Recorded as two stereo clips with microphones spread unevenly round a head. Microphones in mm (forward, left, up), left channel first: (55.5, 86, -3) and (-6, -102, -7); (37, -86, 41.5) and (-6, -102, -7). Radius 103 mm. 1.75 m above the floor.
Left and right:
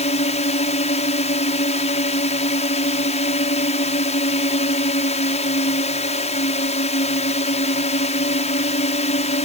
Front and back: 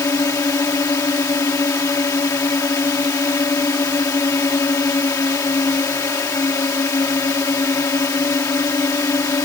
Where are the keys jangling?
I don't hear keys jangling.